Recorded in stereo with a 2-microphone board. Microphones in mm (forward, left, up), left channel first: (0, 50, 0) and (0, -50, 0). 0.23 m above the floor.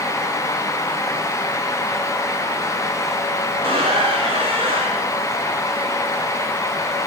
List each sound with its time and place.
3.5 s a squeak: 70° right (ahead or behind), 9 m